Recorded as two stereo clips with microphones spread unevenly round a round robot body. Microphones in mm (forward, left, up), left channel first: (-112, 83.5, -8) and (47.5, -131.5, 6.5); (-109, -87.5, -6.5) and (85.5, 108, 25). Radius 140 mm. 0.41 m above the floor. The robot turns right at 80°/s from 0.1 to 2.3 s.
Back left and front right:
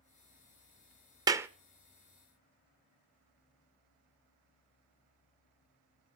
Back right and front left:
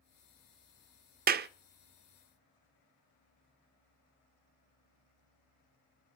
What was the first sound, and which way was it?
A clap, 15° left.